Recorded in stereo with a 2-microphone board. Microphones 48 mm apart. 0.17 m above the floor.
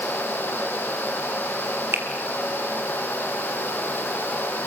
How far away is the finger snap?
About 3.5 m.